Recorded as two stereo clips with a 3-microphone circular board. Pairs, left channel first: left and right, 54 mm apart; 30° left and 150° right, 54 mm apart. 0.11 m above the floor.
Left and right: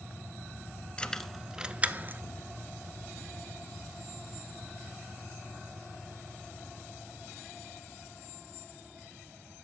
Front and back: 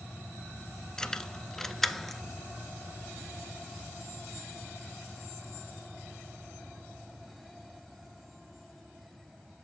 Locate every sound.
1.0 s keys jangling: 80° left, 0.9 m; by 2.2 s 60° right, 1.2 m